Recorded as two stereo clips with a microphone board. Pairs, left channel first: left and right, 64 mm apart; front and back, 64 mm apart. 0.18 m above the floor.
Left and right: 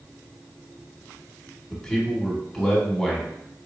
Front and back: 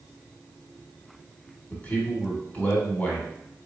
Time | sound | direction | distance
1.7 | a man speaking | 15° left | 1.4 m